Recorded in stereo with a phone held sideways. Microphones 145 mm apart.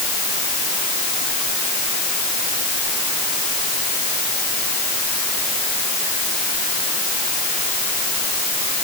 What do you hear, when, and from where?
Only background noise.